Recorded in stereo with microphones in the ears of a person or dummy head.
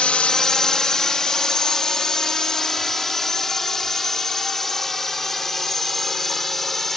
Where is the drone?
5° left (ahead or behind); by 7.0 s centre (ahead or behind).